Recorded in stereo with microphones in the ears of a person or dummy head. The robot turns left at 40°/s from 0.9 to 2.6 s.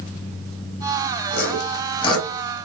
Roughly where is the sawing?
Left.